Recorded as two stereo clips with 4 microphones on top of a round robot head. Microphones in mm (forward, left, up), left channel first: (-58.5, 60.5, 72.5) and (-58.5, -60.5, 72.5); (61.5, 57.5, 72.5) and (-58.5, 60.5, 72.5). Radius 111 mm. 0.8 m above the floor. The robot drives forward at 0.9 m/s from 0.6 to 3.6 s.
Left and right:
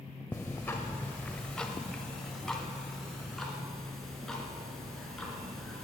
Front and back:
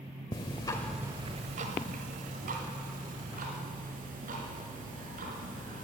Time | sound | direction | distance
0.3 | ticking | 15° left | 0.6 m